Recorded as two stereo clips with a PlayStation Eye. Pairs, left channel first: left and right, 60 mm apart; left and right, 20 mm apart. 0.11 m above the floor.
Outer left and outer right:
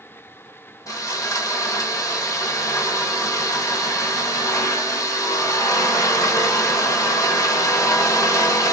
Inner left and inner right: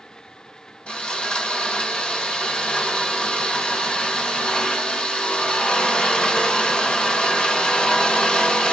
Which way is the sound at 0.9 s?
70° left (ahead or behind).